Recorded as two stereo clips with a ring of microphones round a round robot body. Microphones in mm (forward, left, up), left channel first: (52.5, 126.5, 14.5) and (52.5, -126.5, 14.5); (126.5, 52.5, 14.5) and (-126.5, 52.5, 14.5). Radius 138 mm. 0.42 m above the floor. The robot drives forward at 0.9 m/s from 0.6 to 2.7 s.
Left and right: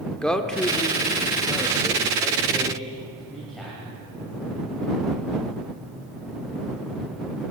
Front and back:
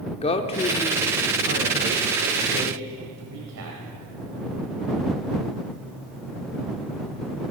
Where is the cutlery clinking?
I don't hear cutlery clinking.